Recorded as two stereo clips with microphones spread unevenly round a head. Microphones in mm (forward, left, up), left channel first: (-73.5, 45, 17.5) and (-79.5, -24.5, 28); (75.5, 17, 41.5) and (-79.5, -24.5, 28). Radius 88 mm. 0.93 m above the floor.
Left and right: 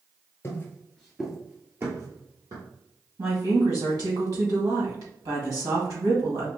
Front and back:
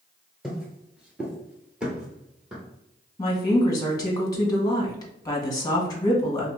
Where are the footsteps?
100° left, 0.9 m; by 2.6 s 75° right, 1.5 m.